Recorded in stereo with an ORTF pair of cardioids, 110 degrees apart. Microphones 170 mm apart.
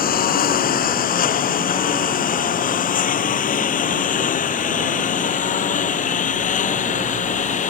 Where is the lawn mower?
55° left; by 7.7 s 45° left.